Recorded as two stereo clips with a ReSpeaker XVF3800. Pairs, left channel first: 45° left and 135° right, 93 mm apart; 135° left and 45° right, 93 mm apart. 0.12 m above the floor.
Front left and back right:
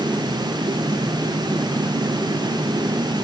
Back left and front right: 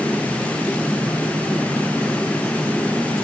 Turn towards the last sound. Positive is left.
No sound to turn to.